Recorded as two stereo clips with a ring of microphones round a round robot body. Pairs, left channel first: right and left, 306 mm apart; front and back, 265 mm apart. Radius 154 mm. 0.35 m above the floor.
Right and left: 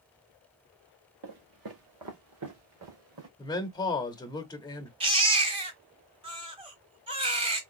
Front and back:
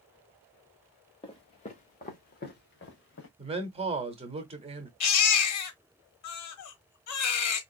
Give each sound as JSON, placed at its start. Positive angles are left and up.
{"t": 1.2, "sound": "footsteps", "azimuth_deg": 70, "distance_m": 2.0}
{"t": 3.4, "sound": "a man speaking", "azimuth_deg": -150, "distance_m": 0.9}
{"t": 5.0, "sound": "a baby crying", "azimuth_deg": 20, "distance_m": 1.1}